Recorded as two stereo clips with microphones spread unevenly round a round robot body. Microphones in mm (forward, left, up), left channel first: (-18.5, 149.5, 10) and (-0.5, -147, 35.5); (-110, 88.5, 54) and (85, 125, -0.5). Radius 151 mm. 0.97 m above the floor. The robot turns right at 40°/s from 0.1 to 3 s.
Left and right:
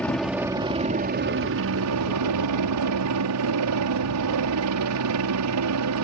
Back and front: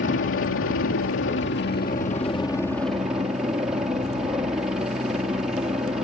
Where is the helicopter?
Straight behind; by 6.0 s 65° right.